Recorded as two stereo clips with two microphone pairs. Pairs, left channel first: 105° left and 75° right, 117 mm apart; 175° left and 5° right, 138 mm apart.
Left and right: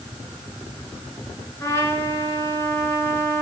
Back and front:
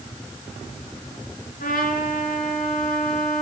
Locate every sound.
1.6 s a trumpet: 170° left, 5 m